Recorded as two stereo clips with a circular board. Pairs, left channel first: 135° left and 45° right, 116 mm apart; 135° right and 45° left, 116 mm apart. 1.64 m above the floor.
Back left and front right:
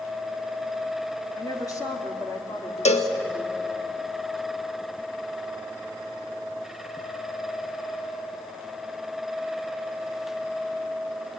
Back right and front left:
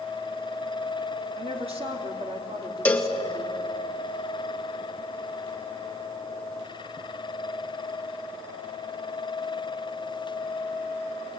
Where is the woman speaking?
75° left, 3 m.